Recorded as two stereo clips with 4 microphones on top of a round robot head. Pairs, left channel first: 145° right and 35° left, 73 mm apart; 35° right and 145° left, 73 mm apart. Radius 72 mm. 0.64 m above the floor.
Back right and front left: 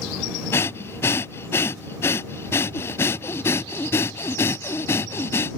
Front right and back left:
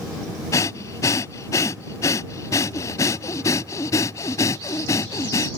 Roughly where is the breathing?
Right.